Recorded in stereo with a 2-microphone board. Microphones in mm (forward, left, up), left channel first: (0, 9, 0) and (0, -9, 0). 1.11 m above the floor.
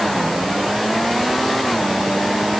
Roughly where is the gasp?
No gasp in this recording.